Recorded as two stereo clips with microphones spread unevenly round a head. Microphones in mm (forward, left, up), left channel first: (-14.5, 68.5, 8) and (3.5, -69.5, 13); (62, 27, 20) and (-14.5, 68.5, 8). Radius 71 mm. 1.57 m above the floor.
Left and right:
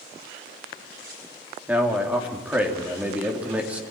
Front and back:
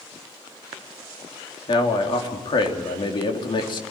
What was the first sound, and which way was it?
A man speaking, straight ahead.